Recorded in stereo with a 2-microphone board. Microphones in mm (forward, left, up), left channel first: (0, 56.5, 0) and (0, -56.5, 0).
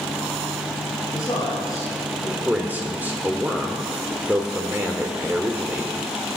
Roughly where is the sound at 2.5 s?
Centre.